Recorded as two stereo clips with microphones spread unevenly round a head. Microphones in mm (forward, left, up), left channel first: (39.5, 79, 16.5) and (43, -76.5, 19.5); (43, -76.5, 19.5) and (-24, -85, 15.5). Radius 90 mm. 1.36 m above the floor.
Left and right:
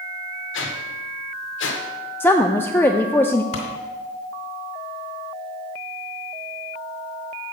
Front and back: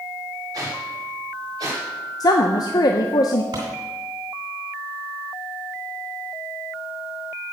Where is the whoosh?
120° left, 1.1 m.